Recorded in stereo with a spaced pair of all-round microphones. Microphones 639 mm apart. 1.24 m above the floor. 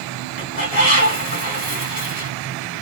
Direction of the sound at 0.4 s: 65° left (ahead or behind).